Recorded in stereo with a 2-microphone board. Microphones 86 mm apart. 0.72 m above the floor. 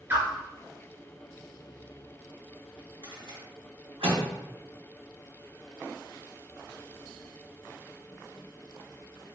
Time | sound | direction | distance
0.1 | a whoosh | 25° right (ahead or behind) | 1.6 m
3.0 | a rattle | 80° right | 2 m